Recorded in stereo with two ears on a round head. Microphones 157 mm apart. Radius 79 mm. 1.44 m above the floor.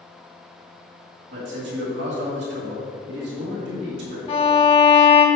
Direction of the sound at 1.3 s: 65° right (ahead or behind).